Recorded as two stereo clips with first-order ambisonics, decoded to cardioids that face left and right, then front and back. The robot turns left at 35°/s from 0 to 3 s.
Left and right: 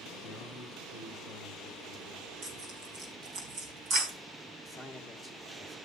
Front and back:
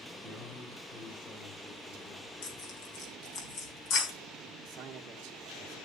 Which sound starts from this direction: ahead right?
Tearing paper, at 2.4 s.